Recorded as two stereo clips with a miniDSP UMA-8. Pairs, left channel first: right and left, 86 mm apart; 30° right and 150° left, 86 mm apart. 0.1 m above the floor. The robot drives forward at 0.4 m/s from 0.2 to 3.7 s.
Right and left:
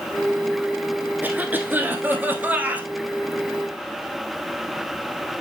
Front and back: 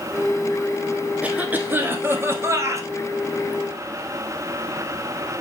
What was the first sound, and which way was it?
A cough, 110° left.